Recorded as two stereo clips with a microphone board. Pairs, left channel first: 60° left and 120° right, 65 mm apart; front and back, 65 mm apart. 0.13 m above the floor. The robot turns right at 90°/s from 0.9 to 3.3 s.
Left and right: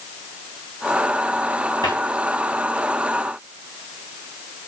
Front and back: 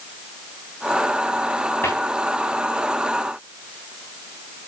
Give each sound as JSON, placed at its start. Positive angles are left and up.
{"t": 1.8, "sound": "a cupboard door", "azimuth_deg": 50, "distance_m": 4.0}